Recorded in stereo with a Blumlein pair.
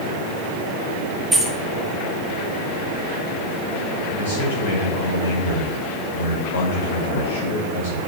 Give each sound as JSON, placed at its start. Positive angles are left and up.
{"t": 1.3, "sound": "keys jangling", "azimuth_deg": -10, "distance_m": 1.3}
{"t": 4.1, "sound": "a man speaking", "azimuth_deg": 65, "distance_m": 5.0}